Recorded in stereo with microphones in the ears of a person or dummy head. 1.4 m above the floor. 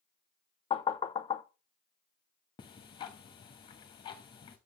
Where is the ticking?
20° left (ahead or behind), 1.0 m.